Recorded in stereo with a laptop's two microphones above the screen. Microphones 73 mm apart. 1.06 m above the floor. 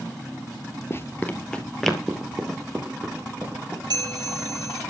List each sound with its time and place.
0.9 s running footsteps: 35° left (ahead or behind), 1.2 m; by 3.8 s 25° right (ahead or behind), 3 m
3.9 s a bell: 75° right (ahead or behind), 3.5 m